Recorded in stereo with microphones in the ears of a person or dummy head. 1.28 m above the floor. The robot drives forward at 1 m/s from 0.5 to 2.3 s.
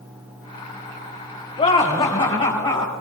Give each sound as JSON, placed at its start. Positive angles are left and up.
{"t": 1.6, "sound": "laughter", "side_deg": 25, "distance_m": 1.7}